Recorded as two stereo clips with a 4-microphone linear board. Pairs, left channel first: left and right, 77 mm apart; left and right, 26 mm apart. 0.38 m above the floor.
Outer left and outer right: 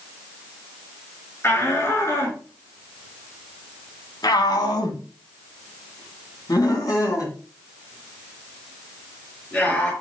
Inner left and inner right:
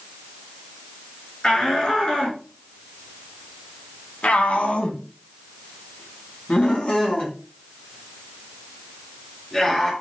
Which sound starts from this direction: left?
A shout, at 1.4 s.